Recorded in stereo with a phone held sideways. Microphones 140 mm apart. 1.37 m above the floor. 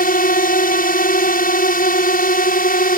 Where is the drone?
75° left (ahead or behind).